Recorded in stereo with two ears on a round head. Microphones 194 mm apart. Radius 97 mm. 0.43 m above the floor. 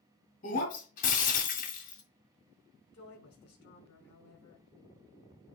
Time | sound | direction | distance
0.4 | breaking glass | 40° left (ahead or behind) | 1.9 m
2.9 | a woman speaking | 50° left (ahead or behind) | 4.5 m